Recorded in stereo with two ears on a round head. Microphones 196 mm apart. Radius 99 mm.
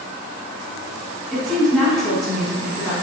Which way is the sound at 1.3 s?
Centre (ahead or behind).